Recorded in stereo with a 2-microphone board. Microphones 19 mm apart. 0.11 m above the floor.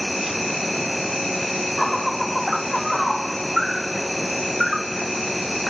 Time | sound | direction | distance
0.0 | an insect | 5° right (ahead or behind) | ?